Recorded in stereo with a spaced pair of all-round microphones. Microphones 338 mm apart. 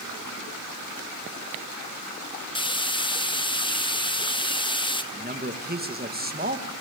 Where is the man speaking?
25° right (ahead or behind), 1.7 m.